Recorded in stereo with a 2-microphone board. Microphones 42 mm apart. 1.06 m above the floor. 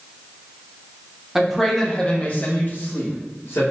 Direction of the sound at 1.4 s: 10° right (ahead or behind).